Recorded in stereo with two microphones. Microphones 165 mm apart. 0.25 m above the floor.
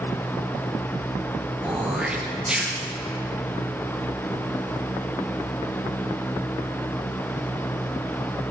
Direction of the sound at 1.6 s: 5° right (ahead or behind).